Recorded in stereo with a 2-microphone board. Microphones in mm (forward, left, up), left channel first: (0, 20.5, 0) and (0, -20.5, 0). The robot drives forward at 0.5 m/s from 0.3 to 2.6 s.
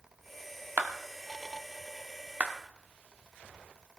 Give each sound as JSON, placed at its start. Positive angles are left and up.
{"t": 0.8, "sound": "a clap", "side_deg": -45, "distance_m": 1.3}